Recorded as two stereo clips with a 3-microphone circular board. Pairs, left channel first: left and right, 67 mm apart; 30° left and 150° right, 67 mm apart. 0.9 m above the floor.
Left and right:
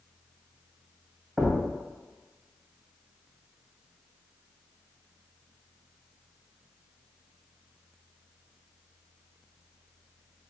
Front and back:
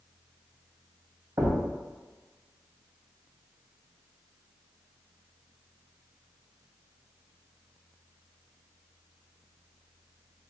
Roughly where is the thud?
Behind.